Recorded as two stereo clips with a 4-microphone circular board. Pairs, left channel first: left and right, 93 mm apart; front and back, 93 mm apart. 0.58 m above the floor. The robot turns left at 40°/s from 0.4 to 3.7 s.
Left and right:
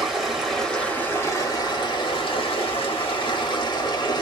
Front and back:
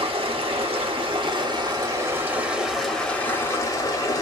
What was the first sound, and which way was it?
Running water, 175° right.